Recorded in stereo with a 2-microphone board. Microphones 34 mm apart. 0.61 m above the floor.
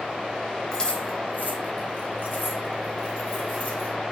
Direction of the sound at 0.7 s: 20° left (ahead or behind).